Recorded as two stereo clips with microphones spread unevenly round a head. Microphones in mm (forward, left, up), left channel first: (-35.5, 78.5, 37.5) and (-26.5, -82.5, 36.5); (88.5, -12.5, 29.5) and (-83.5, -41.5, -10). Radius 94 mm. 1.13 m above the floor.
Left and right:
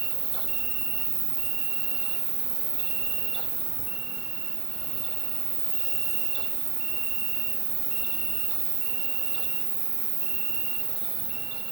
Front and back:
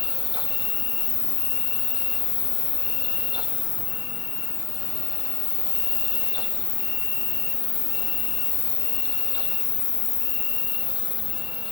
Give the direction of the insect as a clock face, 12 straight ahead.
1 o'clock.